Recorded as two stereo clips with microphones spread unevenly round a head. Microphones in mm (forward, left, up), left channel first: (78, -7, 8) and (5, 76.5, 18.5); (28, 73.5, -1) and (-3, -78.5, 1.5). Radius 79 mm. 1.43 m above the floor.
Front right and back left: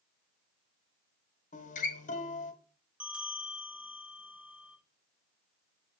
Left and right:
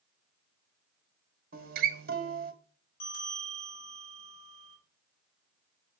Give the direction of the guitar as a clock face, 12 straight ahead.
2 o'clock.